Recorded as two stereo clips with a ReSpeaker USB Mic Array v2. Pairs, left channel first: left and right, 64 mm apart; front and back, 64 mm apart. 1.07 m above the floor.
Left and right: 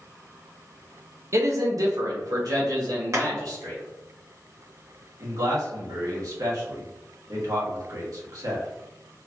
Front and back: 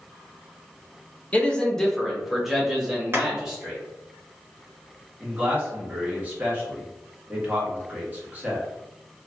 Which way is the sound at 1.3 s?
65° right.